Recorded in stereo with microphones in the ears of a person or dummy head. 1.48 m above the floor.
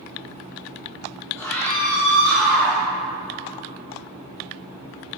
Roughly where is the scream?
Centre.